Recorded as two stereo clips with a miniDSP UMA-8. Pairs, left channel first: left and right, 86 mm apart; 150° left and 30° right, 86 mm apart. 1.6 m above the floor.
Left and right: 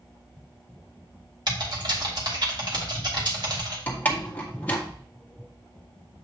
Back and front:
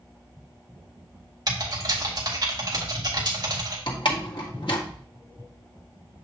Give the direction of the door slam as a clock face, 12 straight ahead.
7 o'clock.